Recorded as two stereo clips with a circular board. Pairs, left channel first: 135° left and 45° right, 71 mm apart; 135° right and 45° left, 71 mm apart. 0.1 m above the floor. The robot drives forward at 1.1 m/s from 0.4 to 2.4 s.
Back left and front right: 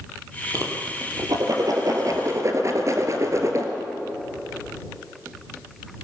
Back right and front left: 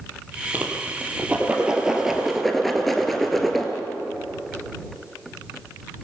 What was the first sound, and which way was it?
A whoosh, 20° right.